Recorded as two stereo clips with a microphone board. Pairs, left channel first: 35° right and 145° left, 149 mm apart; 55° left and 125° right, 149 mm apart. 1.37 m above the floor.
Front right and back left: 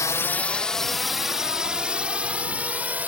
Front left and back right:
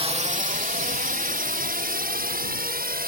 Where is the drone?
95° right; by 3.1 s 135° right.